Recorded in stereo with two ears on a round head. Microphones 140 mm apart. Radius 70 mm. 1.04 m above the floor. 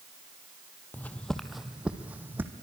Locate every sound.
0.9 s footsteps: 10° left (ahead or behind), 1.2 m; by 2.5 s 15° right (ahead or behind), 1.9 m